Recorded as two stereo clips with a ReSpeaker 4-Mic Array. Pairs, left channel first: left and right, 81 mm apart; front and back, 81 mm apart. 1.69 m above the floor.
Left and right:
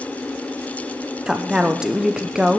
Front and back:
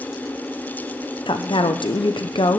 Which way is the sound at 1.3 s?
10° right.